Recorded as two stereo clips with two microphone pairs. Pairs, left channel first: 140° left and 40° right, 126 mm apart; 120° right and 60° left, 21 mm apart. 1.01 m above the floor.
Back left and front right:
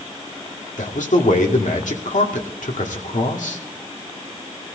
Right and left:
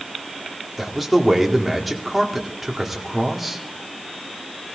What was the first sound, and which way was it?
A man speaking, 145° left.